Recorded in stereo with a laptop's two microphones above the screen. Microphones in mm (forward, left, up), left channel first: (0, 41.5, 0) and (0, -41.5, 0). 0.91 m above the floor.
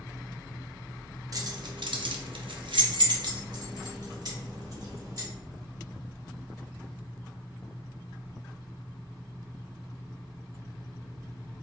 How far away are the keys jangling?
About 0.6 m.